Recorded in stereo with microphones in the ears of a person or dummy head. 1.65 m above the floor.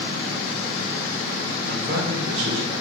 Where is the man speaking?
75° right (ahead or behind), 2.5 m; by 2.7 s 85° right, 3 m.